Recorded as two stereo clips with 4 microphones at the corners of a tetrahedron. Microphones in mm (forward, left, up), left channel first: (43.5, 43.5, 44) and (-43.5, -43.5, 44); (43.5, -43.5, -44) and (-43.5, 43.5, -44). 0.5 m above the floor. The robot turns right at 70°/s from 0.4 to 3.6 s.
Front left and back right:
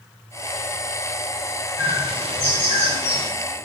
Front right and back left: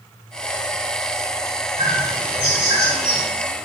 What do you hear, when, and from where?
1.8 s a bird: 160° left, 1.5 m; by 3.3 s 95° right, 1.5 m